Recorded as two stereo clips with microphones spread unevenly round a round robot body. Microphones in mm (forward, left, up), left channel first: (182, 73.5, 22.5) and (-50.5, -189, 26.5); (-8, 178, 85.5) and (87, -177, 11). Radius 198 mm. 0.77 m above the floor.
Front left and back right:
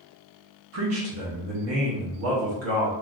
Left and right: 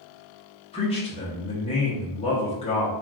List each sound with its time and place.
0.7 s a man speaking: 175° right, 0.7 m